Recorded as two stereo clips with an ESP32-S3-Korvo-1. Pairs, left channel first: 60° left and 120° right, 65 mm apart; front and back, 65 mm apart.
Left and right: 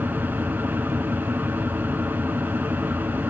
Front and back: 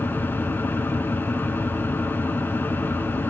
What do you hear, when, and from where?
0.0 s an engine running: 60° right, 1.2 m